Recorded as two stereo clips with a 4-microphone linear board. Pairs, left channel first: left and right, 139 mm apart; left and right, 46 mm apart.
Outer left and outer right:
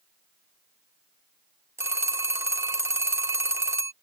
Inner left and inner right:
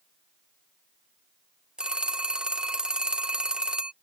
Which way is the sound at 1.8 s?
20° right (ahead or behind).